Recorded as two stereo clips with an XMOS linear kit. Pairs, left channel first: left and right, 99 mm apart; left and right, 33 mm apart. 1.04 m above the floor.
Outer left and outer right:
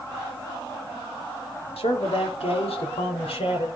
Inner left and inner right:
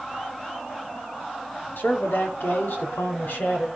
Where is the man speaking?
75° left (ahead or behind), 2.5 m.